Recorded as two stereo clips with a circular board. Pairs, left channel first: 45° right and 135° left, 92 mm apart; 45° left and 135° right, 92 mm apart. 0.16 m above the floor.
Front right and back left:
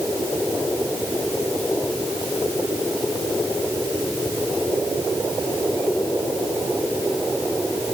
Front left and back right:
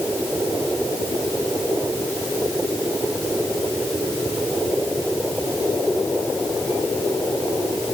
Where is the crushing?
I don't hear crushing.